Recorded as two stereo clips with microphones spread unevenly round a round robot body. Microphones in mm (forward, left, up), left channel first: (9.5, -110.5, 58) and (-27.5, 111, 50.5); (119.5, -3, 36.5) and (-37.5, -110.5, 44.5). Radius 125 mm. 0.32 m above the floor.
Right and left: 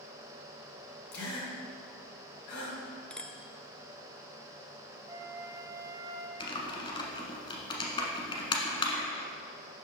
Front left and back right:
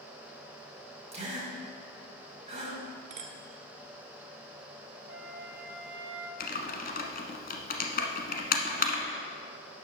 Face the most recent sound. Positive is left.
turn(degrees=-10)